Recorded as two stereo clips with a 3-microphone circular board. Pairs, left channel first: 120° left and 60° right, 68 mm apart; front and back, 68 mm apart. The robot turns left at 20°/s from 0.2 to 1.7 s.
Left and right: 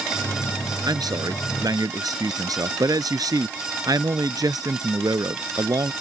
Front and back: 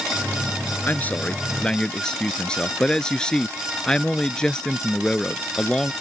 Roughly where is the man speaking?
Ahead right.